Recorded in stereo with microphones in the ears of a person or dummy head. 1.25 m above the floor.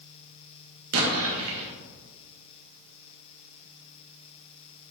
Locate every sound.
0.9 s an explosion: 80° right, 1.3 m